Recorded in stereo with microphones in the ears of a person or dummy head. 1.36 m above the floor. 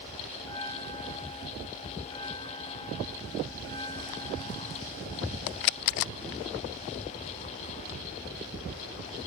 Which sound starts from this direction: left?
A bell, at 0.4 s.